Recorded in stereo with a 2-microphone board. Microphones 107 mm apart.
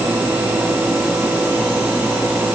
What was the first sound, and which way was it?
Only background noise.